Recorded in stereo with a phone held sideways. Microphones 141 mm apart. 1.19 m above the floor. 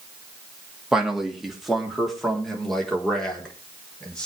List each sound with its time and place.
0.9 s a man speaking: 5° right (ahead or behind), 2.5 m; by 4.3 s 5° left (ahead or behind), 4.5 m